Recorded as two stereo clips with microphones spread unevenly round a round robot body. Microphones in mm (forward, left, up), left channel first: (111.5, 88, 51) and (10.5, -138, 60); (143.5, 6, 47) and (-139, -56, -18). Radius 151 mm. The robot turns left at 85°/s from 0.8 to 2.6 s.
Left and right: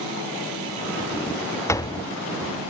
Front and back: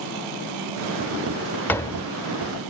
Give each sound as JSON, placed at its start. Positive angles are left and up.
{"t": 1.7, "sound": "a door slam", "azimuth_deg": 120}